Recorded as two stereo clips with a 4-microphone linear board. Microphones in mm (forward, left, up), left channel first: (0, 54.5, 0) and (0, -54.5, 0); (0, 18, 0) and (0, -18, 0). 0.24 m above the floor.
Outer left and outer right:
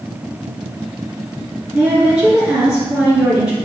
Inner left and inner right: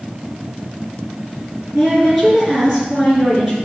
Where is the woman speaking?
10° right (ahead or behind), 3 m.